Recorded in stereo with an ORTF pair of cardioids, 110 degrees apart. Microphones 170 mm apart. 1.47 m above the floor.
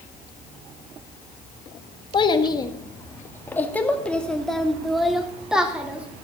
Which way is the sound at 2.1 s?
30° left.